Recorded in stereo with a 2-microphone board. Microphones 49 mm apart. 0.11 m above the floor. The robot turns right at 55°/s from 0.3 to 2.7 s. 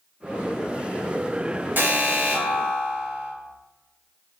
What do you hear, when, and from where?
1.8 s an alarm: 95° right, 1.8 m; by 3.3 s 45° right, 1.8 m